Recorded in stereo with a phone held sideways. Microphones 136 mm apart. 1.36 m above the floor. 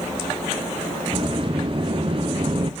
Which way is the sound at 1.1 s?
40° right (ahead or behind).